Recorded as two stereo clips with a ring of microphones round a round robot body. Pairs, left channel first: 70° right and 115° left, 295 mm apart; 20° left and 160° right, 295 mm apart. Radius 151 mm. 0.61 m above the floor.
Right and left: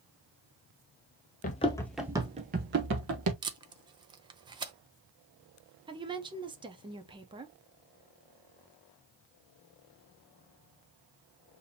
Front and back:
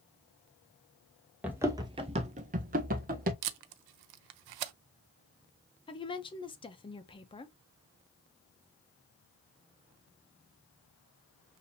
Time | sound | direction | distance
1.4 | running footsteps | 80° right | 0.6 m
3.4 | tape being pulled | 170° right | 0.6 m
5.9 | a woman speaking | 65° left | 0.7 m